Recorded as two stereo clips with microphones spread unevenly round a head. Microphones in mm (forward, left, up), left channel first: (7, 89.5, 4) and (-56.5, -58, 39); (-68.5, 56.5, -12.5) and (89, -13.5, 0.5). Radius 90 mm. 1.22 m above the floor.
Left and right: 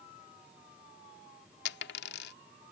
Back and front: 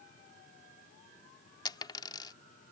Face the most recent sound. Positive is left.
turn(degrees=90)